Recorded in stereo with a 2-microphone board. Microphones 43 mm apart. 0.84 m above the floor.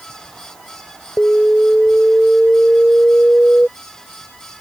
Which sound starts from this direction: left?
An alarm, at 1.2 s.